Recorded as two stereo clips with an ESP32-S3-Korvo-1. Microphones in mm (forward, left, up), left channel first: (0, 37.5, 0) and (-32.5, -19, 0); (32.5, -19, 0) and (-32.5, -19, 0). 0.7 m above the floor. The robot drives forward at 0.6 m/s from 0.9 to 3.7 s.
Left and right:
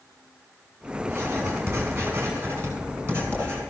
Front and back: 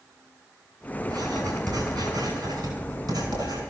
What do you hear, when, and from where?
1.1 s writing: 175° right, 5 m